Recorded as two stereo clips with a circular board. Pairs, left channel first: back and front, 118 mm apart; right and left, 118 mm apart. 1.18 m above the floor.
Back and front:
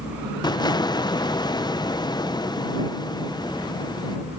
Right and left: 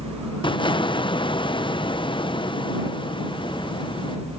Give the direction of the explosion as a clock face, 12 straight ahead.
4 o'clock.